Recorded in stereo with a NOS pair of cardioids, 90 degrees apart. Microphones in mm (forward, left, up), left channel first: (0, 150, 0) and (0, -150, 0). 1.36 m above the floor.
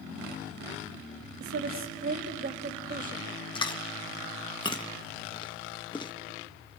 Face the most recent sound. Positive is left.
turn(degrees=15)